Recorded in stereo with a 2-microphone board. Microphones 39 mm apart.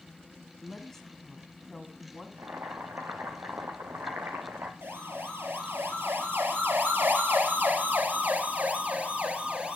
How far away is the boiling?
About 3 m.